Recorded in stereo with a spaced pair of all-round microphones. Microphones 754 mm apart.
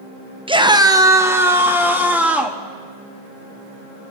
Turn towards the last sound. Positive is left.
turn(degrees=0)  # may be behind; listen again after turning